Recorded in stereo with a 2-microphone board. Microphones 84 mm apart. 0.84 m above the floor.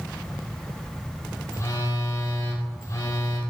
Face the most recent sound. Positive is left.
turn(degrees=35)  # may be behind; listen again after turning